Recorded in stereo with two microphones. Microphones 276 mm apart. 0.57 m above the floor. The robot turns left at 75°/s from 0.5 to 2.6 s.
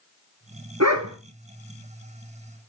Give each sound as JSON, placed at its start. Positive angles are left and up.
{"t": 0.8, "sound": "a dog barking", "side_deg": -65, "distance_m": 1.9}